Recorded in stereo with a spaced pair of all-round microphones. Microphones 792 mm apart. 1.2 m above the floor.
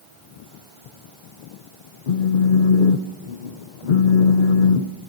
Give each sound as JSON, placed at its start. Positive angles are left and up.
{"t": 2.1, "sound": "a phone buzzing", "side_deg": 65, "distance_m": 0.8}